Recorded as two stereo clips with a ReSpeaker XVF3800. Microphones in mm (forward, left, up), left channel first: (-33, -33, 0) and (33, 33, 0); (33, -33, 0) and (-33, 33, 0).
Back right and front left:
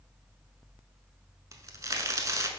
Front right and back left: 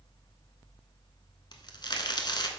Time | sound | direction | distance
1.5 | a crack | 10° right | 0.8 m